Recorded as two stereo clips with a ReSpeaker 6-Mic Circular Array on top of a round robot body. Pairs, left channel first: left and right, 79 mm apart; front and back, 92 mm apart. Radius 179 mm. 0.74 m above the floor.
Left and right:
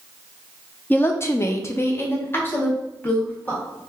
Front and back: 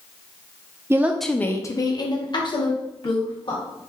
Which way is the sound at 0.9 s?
140° left.